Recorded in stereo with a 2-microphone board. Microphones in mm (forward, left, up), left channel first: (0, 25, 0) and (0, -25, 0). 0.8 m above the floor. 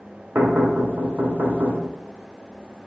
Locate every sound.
0.3 s knocking: 45° right (ahead or behind), 2.5 m